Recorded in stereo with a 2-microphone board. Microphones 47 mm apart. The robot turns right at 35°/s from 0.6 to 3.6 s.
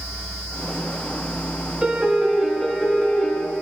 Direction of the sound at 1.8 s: 20° right.